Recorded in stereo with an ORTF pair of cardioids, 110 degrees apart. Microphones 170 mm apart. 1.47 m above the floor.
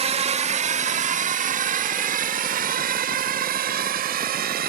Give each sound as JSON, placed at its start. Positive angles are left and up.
{"t": 0.0, "sound": "a drone", "azimuth_deg": -40}